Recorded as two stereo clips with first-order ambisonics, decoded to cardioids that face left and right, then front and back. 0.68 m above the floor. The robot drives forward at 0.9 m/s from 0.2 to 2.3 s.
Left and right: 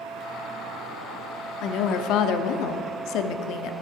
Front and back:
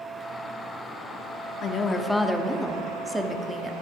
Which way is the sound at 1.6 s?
55° left.